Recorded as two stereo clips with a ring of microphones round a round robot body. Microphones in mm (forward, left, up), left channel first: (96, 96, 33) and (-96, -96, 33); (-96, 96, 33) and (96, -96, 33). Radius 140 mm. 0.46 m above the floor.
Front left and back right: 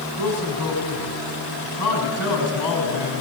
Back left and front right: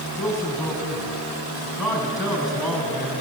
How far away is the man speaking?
About 4.5 m.